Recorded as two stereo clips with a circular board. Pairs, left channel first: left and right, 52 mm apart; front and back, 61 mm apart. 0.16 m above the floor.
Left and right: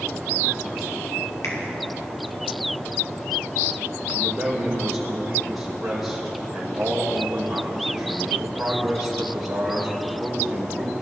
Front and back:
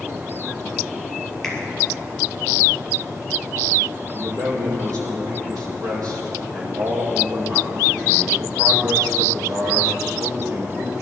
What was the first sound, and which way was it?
A finger snap, 85° left.